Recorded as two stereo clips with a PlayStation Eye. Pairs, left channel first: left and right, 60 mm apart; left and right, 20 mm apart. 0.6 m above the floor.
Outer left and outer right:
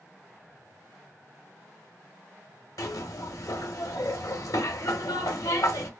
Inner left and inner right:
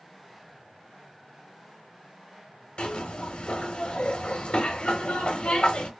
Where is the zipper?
75° left (ahead or behind), 1.0 m.